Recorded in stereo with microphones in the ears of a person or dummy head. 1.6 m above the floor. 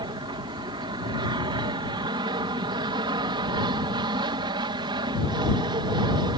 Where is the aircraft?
25° right (ahead or behind).